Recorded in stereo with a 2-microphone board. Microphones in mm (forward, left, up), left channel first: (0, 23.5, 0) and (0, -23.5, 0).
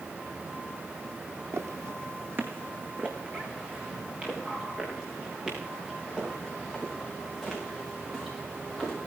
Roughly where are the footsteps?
Right.